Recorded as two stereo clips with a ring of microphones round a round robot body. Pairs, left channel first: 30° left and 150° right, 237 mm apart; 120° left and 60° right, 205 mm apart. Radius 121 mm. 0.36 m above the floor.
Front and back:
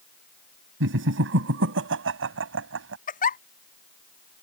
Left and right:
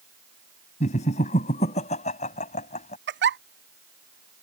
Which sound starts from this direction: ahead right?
A giggle, at 3.1 s.